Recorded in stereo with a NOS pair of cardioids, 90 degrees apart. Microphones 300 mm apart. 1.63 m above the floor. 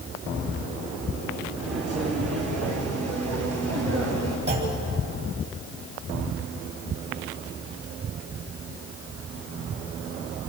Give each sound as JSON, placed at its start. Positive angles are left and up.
{"t": 1.6, "sound": "footsteps", "azimuth_deg": -55, "distance_m": 7.0}
{"t": 4.5, "sound": "a clunk", "azimuth_deg": -35, "distance_m": 9.0}